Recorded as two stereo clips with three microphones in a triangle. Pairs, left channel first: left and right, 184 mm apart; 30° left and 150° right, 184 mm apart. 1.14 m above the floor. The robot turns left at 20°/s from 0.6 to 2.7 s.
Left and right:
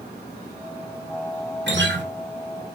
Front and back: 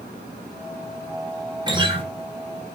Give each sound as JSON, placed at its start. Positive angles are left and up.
{"t": 1.7, "sound": "a guitar", "azimuth_deg": -85, "distance_m": 2.0}